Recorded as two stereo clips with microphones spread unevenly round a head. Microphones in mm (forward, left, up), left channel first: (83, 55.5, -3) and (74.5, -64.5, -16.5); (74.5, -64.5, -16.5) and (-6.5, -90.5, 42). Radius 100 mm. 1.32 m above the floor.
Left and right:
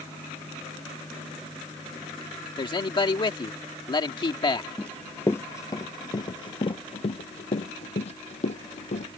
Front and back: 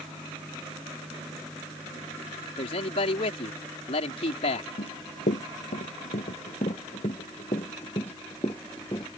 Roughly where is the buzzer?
I don't hear a buzzer.